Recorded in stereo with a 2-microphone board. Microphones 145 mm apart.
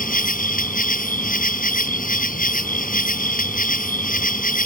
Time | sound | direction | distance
0.0 | an insect | 80° left | ?